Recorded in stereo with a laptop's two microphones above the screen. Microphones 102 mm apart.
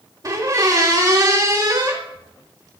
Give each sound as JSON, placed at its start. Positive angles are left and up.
{"t": 0.2, "sound": "a squeak", "side_deg": -35, "distance_m": 0.7}